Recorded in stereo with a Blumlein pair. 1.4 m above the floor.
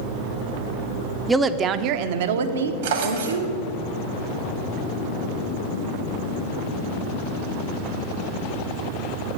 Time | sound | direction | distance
1.3 | a woman speaking | 10° right | 0.6 m
2.8 | a drawer | 60° right | 1.5 m